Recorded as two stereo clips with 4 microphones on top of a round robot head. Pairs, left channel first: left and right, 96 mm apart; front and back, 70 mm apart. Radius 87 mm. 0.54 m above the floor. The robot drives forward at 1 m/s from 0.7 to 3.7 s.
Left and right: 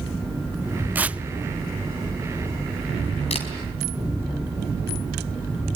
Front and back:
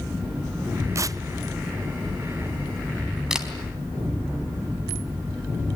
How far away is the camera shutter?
About 4 m.